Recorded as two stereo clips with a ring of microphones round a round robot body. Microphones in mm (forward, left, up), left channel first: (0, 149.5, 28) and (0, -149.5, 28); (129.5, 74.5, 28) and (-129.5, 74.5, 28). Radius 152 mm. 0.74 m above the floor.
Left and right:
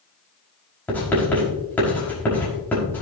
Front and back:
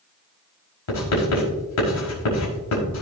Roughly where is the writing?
Ahead.